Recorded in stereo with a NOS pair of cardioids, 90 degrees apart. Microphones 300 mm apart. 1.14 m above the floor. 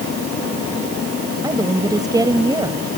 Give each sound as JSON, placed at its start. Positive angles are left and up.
{"t": 1.4, "sound": "a woman speaking", "azimuth_deg": -10}